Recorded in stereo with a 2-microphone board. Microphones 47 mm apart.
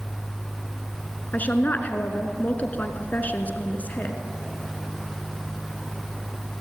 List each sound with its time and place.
1.3 s a woman speaking: 35° left (ahead or behind), 2.5 m